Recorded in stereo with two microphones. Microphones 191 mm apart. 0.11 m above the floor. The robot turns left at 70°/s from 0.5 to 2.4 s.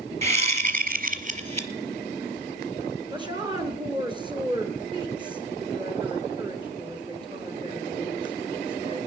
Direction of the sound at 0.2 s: 55° right.